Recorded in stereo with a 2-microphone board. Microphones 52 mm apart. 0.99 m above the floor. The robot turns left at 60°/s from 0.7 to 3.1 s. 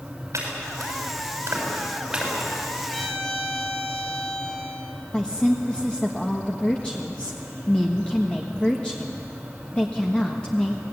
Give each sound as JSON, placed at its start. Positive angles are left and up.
{"t": 0.3, "sound": "chopping", "side_deg": -80, "distance_m": 6.5}
{"t": 2.9, "sound": "a violin", "side_deg": 5, "distance_m": 2.0}
{"t": 5.1, "sound": "a woman speaking", "side_deg": 20, "distance_m": 1.5}